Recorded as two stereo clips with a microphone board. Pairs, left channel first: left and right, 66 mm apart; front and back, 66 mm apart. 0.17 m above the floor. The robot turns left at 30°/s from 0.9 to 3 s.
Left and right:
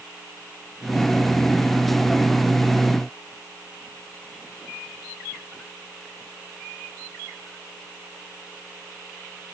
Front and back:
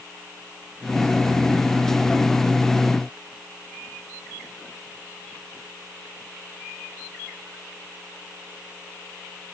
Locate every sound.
Only background noise.